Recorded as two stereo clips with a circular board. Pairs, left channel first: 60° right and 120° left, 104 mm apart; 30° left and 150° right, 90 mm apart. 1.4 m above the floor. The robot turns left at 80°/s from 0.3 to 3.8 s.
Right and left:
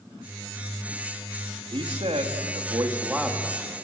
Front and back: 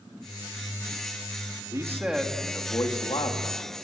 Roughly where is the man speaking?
Behind.